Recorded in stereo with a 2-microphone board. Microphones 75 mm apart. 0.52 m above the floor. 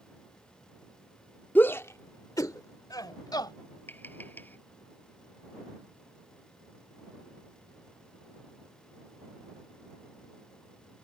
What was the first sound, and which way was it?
A shout, 25° left (ahead or behind).